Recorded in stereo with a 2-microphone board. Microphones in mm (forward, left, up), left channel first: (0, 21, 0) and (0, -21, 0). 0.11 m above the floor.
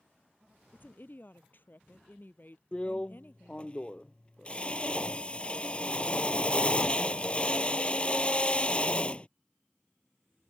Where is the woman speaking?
50° left (ahead or behind).